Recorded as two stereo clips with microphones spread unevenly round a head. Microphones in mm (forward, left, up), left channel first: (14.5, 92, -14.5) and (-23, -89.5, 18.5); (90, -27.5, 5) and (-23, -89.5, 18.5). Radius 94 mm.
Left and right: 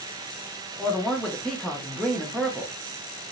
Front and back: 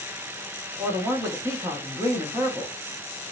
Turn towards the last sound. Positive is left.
turn(degrees=145)